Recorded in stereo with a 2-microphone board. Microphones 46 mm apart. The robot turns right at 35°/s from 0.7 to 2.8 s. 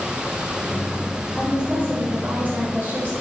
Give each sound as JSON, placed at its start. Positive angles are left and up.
{"t": 1.3, "sound": "a woman speaking", "azimuth_deg": -165, "distance_m": 4.0}